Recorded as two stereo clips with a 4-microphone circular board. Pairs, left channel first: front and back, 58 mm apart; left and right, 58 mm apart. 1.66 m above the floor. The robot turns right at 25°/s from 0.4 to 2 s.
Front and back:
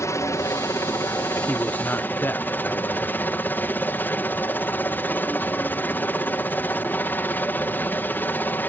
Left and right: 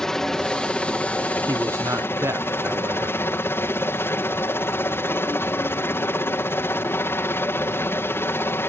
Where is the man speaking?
65° right; by 3.2 s 50° right.